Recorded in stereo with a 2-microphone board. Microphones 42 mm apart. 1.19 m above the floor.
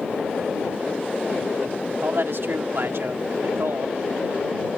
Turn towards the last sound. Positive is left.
turn(degrees=-70)  # may be behind; listen again after turning